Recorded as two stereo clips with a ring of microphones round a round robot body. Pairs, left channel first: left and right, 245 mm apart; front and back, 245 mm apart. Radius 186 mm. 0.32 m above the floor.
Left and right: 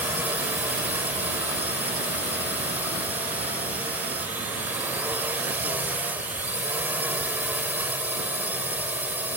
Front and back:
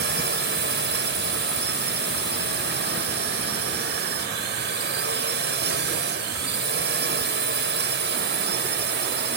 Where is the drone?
170° right.